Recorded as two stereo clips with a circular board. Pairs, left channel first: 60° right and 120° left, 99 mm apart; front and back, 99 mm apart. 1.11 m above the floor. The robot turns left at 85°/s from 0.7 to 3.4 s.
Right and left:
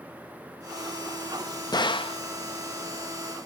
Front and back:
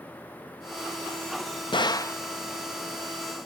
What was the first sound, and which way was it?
A gunshot, 20° right.